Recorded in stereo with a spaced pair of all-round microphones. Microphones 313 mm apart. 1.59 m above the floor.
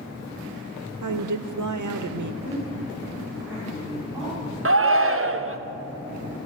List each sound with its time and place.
1.0 s a woman speaking: 70° right (ahead or behind), 0.6 m
2.4 s a woman speaking: 5° right (ahead or behind), 5 m
4.7 s a shout: 45° right (ahead or behind), 0.7 m